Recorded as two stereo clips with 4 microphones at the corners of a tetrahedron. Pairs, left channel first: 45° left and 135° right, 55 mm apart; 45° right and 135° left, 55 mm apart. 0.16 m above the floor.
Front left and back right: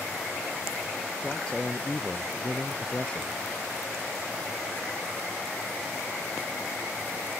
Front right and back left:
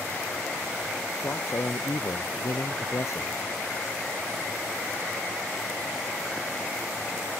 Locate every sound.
1.2 s a man speaking: 25° right